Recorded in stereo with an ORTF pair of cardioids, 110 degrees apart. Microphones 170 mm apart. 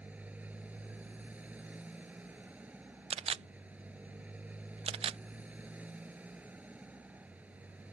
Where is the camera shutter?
35° right.